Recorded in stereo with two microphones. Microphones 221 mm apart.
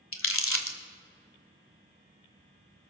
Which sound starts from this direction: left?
Crumpling, at 0.1 s.